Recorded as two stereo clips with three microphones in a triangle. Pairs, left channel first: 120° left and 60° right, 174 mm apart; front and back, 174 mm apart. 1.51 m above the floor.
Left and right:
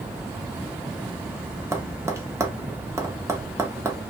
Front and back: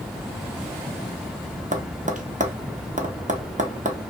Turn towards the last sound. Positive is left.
turn(degrees=-130)